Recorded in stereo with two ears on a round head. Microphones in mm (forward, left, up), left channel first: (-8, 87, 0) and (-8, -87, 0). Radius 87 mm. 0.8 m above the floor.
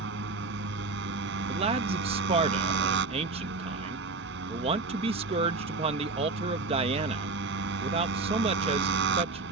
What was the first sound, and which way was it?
A motorcycle, 70° right (ahead or behind).